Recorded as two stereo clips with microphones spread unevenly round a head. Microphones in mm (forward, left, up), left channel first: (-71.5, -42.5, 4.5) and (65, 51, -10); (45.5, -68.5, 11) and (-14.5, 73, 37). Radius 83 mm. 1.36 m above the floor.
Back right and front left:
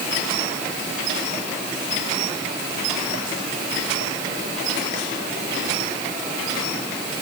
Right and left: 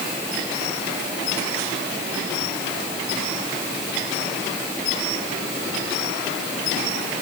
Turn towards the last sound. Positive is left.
No sound to turn to.